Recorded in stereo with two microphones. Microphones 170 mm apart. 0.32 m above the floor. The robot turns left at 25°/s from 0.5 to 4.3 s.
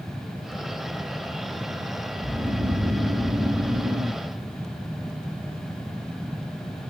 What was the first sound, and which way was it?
Snoring, 70° right.